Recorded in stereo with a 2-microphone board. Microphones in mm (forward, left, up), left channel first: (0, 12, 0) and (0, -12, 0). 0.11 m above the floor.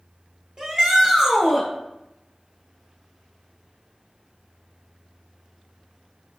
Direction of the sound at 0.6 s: 35° right (ahead or behind).